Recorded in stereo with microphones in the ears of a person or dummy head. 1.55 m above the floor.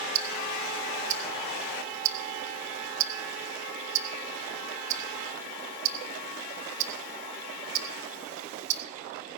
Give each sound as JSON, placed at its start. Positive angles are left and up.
{"t": 0.1, "sound": "ticking", "side_deg": -55, "distance_m": 1.1}